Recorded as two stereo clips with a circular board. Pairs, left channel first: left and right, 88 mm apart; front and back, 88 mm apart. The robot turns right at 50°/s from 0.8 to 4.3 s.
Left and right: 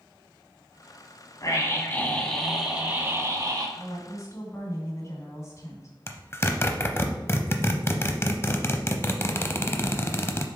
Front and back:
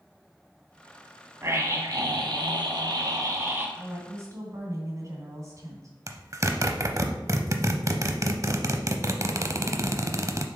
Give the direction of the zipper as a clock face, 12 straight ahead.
7 o'clock.